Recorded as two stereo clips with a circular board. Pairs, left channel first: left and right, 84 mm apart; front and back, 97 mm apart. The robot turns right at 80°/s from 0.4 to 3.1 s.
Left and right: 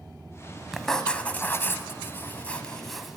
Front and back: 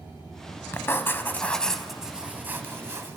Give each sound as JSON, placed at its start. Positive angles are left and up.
{"t": 0.7, "sound": "writing", "azimuth_deg": 0, "distance_m": 0.6}